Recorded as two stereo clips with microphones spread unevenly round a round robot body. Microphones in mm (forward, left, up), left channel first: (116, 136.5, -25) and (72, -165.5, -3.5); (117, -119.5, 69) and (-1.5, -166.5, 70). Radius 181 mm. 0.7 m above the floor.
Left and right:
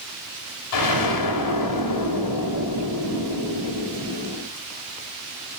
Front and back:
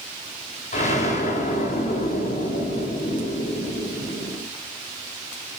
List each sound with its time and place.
0.7 s an explosion: 65° left, 3.5 m